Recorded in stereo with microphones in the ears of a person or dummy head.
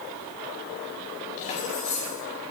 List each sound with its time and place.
1.4 s keys jangling: 35° left (ahead or behind), 4 m